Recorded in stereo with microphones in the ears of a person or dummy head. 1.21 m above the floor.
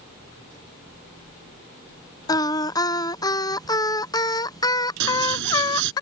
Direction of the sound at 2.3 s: 20° left (ahead or behind).